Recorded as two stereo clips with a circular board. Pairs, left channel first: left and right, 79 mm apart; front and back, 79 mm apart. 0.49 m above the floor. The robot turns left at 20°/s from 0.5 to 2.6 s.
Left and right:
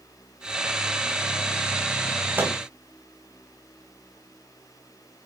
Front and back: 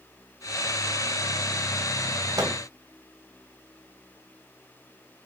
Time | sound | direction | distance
2.4 | a microwave | 150° right | 3 m